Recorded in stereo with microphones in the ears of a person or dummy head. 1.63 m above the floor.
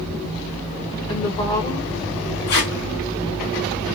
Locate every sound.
1.1 s a woman speaking: 25° left (ahead or behind), 1.2 m
2.5 s tape being pulled: 50° left (ahead or behind), 1.4 m